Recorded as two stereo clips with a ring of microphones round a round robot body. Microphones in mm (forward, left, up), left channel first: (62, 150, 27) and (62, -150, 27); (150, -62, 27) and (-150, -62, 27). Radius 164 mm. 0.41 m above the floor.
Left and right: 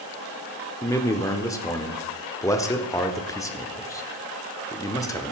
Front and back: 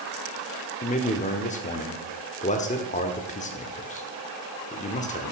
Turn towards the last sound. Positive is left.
turn(degrees=25)